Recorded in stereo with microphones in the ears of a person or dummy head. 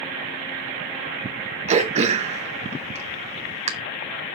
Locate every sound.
1.7 s throat clearing: 40° right (ahead or behind), 0.6 m